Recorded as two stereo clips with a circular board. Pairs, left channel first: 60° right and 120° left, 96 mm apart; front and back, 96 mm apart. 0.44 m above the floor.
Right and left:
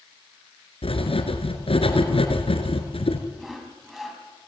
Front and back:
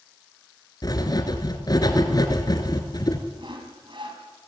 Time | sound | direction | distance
0.8 | writing | 50° right | 2.5 m
3.4 | sawing | 150° right | 4 m